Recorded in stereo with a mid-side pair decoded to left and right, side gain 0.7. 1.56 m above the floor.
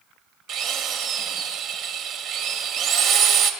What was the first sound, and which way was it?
A drill, 60° right.